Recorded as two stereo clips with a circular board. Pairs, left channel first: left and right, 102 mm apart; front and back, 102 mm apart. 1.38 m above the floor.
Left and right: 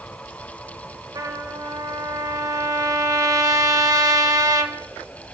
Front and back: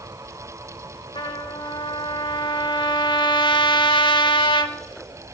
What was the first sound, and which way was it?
A trumpet, 35° right.